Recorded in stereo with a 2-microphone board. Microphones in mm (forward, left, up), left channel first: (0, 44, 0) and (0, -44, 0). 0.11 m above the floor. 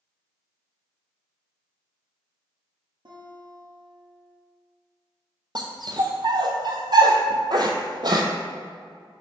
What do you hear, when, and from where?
3.0 s a guitar: 60° right (ahead or behind), 1.6 m
5.5 s a dog barking: 55° right (ahead or behind), 0.8 m